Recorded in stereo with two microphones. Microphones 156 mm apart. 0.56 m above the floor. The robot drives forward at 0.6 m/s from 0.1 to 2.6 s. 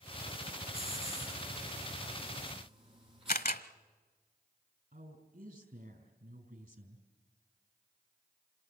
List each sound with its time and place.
0.7 s a hiss: 40° right (ahead or behind), 8.5 m; by 3.4 s 35° right (ahead or behind), 9.5 m
3.3 s a camera shutter: 70° left (ahead or behind), 0.9 m
4.9 s a woman speaking: 70° right (ahead or behind), 4.5 m